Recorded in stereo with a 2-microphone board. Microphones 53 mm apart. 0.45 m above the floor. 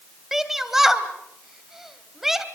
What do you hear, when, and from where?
0.3 s a shout: 5° right (ahead or behind), 2.5 m